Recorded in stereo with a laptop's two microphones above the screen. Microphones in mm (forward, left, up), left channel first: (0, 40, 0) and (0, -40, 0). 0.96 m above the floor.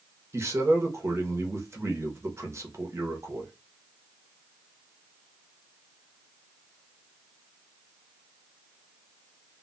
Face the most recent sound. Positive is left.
turn(degrees=-35)  # may be behind; listen again after turning